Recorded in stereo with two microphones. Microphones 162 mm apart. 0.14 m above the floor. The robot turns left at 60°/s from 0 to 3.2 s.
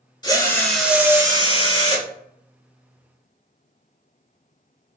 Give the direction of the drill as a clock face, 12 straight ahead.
11 o'clock.